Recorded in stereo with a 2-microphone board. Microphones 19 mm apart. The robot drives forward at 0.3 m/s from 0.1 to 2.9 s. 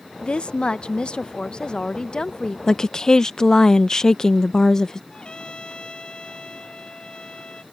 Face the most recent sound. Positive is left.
turn(degrees=45)  # may be behind; listen again after turning